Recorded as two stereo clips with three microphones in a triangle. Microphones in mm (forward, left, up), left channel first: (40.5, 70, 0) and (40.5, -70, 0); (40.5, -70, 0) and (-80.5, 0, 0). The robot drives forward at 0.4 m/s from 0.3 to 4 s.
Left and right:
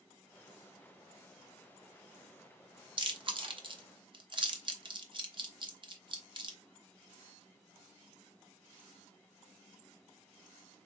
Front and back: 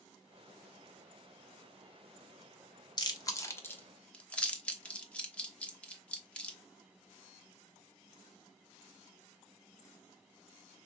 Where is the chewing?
65° right, 1.0 m; by 6.6 s 105° right, 1.0 m.